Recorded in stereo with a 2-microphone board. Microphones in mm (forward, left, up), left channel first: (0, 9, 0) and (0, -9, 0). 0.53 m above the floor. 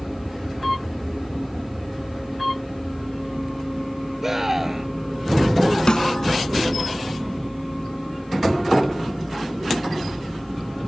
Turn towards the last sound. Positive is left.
turn(degrees=50)  # may be behind; listen again after turning